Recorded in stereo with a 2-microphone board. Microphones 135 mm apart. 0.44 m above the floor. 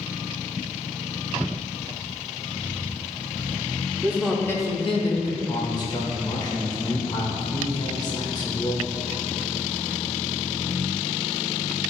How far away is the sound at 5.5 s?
About 1.2 m.